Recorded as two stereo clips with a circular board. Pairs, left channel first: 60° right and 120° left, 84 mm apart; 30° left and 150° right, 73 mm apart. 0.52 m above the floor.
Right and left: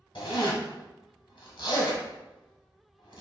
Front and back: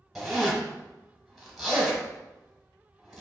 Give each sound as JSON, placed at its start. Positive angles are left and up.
{"t": 0.1, "sound": "a zipper", "azimuth_deg": -60, "distance_m": 1.2}